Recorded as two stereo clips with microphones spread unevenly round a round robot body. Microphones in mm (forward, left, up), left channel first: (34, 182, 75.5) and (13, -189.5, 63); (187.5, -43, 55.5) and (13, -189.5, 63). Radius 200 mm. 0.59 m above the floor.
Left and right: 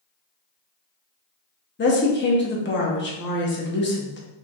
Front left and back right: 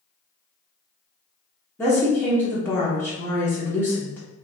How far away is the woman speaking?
About 0.8 m.